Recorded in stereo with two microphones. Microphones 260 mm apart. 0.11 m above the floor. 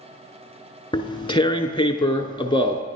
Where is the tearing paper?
20° left (ahead or behind), 0.6 m.